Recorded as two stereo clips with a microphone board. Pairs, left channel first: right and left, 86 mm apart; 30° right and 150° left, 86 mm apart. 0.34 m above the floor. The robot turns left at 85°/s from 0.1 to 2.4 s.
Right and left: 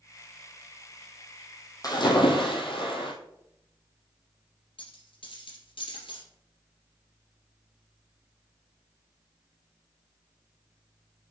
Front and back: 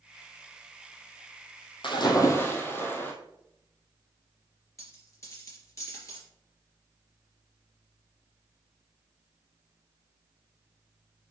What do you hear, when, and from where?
1.8 s a splash: 45° right, 1.8 m; by 3.1 s 95° right, 1.8 m
4.8 s a dropped coin: 80° right, 3 m